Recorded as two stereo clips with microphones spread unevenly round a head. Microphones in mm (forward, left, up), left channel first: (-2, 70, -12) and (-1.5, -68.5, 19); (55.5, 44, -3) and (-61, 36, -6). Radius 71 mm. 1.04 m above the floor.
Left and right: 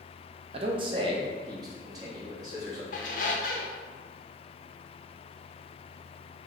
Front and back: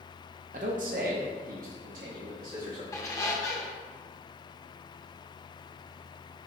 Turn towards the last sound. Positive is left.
turn(degrees=60)